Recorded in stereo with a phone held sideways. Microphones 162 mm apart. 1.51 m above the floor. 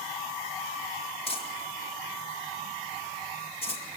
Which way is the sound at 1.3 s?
35° left (ahead or behind).